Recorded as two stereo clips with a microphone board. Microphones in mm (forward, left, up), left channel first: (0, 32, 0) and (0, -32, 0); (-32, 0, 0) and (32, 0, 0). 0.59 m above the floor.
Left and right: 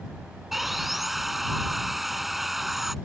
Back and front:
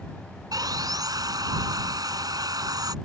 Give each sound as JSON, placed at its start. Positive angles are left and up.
{"t": 0.5, "sound": "sawing", "azimuth_deg": -5}